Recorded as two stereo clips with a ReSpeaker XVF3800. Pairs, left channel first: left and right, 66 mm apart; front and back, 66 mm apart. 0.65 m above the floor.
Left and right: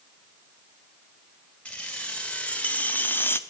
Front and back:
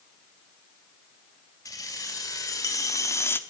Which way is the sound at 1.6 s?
15° left.